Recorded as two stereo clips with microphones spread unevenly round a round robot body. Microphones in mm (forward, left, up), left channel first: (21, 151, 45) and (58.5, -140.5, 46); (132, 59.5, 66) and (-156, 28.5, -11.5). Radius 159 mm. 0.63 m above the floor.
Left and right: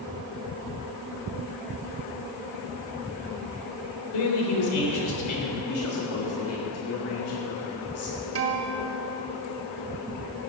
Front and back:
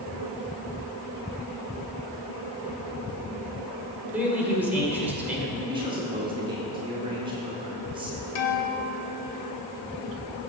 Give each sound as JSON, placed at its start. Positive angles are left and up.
{"t": 4.1, "sound": "a man speaking", "azimuth_deg": 110, "distance_m": 3.0}
{"t": 5.7, "sound": "a man speaking", "azimuth_deg": 125, "distance_m": 2.0}
{"t": 8.3, "sound": "a guitar", "azimuth_deg": -40, "distance_m": 1.2}